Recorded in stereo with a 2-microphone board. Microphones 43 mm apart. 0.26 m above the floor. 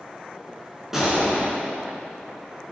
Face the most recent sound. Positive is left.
turn(degrees=-10)  # may be behind; listen again after turning